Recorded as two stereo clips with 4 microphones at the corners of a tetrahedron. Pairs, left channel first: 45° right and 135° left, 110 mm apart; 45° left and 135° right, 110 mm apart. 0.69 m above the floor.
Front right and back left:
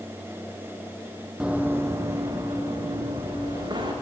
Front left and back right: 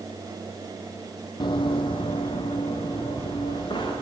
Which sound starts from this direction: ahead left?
Running footsteps, at 1.4 s.